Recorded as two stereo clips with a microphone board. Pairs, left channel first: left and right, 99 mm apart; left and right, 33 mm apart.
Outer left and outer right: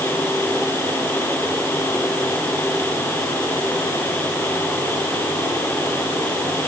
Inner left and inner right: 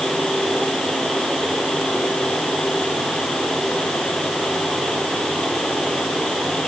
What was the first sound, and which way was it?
Only background noise.